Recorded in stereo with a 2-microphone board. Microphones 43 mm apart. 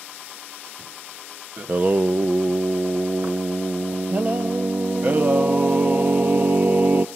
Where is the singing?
40° right (ahead or behind), 0.8 m.